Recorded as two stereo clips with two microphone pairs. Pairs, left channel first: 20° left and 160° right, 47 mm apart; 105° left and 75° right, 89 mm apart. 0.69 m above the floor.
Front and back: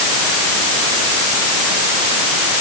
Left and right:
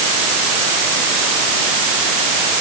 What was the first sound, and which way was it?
Only background noise.